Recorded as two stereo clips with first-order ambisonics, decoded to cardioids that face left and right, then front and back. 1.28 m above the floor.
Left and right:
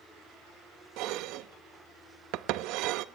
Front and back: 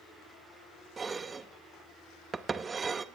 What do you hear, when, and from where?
1.0 s dishes clattering: 105° right, 0.9 m